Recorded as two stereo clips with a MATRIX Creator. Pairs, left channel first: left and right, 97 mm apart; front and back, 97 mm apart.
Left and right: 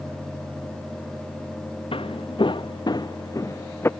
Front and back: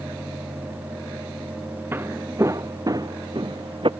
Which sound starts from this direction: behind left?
Footsteps, at 1.9 s.